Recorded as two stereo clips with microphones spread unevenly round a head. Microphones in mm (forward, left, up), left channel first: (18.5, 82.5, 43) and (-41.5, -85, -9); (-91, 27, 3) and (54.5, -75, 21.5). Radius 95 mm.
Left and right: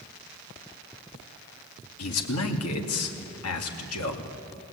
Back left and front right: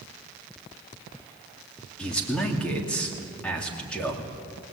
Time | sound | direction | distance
2.0 | a man speaking | 60° left | 2.5 m